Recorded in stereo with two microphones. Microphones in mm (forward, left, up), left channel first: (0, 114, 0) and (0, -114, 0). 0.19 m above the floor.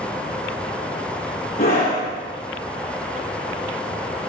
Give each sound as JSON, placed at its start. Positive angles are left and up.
{"t": 1.6, "sound": "a scream", "side_deg": 40, "distance_m": 3.0}